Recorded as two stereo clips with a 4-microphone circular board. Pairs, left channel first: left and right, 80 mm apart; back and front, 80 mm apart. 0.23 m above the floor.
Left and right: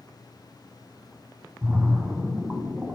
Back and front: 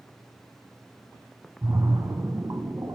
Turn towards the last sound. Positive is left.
turn(degrees=-30)